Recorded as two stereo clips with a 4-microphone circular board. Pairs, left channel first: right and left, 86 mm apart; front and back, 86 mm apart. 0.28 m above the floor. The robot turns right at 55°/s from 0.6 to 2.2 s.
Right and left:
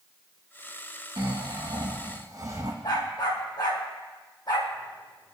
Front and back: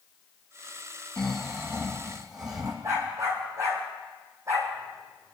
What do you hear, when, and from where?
1.2 s snoring: 80° left, 3 m; by 2.7 s 135° left, 3 m
2.8 s a dog barking: 125° right, 4 m